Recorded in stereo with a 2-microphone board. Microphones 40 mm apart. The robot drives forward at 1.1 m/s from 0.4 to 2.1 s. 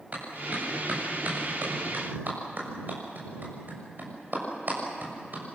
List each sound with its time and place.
0.1 s a clap: 40° right (ahead or behind), 7.5 m; by 5.4 s 50° right (ahead or behind), 6 m